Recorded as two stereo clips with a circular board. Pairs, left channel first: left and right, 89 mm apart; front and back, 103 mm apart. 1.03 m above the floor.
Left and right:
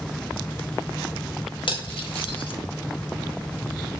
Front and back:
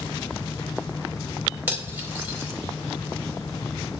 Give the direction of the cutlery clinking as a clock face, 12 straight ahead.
8 o'clock.